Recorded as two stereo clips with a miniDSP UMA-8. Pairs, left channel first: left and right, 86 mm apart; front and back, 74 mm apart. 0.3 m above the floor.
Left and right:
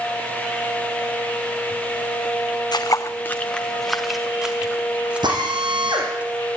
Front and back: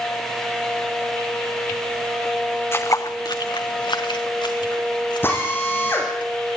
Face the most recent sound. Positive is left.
turn(degrees=-60)